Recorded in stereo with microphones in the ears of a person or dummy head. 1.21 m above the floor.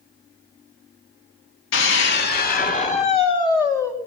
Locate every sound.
1.7 s a scream: 60° left (ahead or behind), 1.7 m; by 3.9 s 10° left (ahead or behind), 1.7 m